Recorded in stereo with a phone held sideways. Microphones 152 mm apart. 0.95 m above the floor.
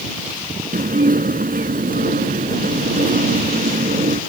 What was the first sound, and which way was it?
Dishes clattering, 70° right (ahead or behind).